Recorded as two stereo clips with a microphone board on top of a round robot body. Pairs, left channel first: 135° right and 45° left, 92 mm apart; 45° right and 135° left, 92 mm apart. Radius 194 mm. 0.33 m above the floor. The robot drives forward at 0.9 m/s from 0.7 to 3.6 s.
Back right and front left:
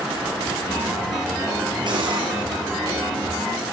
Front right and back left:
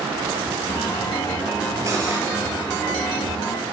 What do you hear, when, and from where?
1.9 s cutlery clinking: 80° left, 5.5 m